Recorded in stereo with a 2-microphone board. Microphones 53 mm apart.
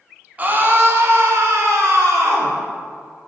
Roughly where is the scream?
Right.